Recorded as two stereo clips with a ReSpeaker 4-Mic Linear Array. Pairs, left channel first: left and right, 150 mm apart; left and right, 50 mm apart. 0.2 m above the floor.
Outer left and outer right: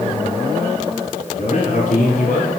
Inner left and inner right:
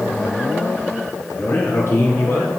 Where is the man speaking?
55° left (ahead or behind), 3.5 m; by 2.5 s 65° left (ahead or behind), 4 m.